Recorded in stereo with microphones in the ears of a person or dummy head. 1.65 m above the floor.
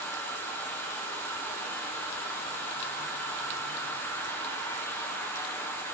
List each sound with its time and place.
0.0 s an insect: 10° left (ahead or behind), 1.4 m